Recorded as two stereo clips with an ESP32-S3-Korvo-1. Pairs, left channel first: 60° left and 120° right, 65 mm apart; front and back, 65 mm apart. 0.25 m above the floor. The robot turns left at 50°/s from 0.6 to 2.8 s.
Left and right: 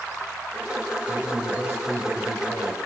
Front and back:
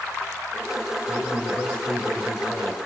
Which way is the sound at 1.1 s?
40° right.